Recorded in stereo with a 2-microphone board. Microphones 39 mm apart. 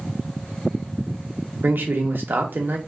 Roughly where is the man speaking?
Right.